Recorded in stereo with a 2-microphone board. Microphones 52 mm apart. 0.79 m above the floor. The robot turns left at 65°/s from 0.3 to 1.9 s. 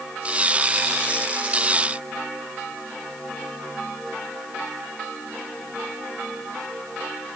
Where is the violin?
No violin in this recording.